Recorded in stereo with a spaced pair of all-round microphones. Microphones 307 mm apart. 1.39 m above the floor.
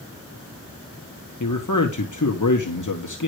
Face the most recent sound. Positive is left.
turn(degrees=75)  # may be behind; listen again after turning